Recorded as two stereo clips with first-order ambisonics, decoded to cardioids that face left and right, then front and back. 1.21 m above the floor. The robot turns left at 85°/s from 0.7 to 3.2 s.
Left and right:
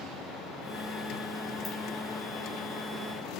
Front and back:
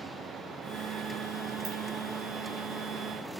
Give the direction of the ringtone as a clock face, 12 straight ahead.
7 o'clock.